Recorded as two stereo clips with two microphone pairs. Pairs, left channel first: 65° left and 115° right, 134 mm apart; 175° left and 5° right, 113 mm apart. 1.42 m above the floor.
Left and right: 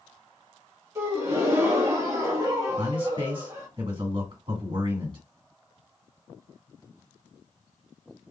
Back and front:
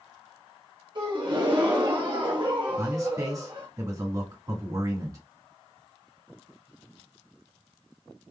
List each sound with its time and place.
0.9 s a gasp: 45° right, 1.6 m
2.8 s a man speaking: 55° right, 2.5 m